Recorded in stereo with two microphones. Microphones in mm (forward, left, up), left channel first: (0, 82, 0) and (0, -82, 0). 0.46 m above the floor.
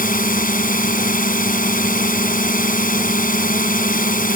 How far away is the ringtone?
No ringtone in this recording.